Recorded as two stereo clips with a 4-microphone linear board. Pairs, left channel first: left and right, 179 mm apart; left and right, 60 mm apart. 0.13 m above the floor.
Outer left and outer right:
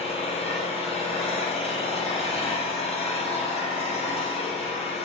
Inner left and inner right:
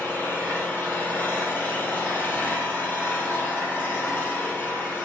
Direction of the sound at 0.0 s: 35° left (ahead or behind).